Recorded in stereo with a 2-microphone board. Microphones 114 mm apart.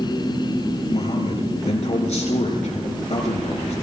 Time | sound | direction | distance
0.9 | a man speaking | 70° left (ahead or behind) | 6 m